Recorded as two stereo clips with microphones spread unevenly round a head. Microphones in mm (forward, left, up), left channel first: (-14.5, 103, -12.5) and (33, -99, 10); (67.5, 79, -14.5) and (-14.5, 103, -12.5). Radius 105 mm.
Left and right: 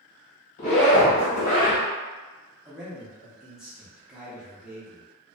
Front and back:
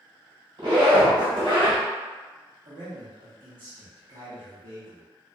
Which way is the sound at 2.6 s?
160° right.